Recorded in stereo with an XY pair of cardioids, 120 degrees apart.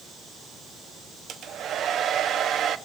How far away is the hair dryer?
About 1.2 m.